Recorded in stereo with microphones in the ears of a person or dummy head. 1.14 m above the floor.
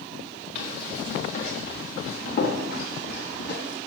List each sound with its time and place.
0.6 s running footsteps: 40° left (ahead or behind), 5 m; by 3.8 s 60° left (ahead or behind), 2.5 m